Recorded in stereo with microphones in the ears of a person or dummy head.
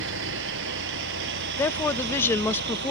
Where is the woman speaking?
15° left (ahead or behind).